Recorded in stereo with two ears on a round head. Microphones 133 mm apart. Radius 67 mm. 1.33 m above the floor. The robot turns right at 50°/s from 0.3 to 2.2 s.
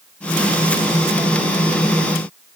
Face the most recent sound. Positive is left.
No sound to turn to.